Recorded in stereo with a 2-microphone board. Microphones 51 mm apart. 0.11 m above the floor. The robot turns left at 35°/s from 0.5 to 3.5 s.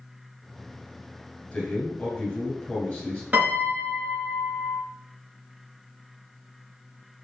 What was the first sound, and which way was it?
A man speaking, 20° left (ahead or behind).